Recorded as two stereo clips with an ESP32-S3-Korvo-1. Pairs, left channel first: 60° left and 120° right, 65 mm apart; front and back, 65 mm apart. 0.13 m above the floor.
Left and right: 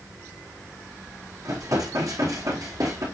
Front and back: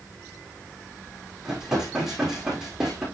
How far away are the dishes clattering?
About 4.5 m.